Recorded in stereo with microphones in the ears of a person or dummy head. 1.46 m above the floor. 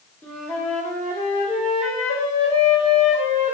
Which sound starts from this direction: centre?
A flute, at 0.2 s.